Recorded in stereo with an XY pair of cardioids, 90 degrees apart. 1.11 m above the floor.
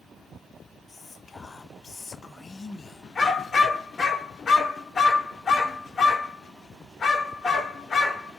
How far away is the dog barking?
About 1.6 m.